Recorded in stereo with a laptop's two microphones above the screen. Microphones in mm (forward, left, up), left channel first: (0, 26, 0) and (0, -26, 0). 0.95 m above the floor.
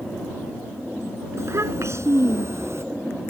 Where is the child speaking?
60° right (ahead or behind); by 2.9 s 55° right (ahead or behind).